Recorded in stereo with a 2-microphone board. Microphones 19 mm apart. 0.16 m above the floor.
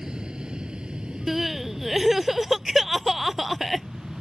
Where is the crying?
10° right (ahead or behind).